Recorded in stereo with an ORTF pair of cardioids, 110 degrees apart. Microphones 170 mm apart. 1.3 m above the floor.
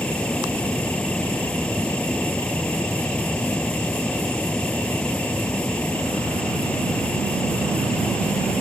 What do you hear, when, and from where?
0.0 s a fan: 5° left